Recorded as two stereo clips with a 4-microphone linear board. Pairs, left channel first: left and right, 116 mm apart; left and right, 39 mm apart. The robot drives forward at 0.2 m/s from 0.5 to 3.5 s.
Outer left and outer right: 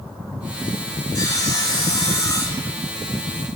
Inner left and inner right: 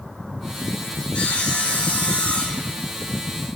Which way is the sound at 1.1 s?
35° left (ahead or behind).